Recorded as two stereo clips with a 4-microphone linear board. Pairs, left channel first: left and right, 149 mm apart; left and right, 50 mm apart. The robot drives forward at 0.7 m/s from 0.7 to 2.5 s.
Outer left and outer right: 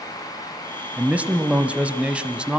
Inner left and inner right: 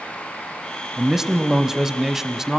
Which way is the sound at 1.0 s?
10° right (ahead or behind).